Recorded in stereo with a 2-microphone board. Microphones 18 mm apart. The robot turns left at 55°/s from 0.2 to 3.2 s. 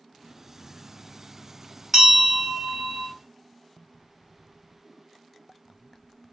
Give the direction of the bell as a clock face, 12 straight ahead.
12 o'clock.